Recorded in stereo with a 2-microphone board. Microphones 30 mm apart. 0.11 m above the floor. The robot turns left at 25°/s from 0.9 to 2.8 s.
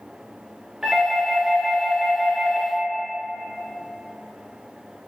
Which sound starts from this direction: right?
A doorbell, at 0.8 s.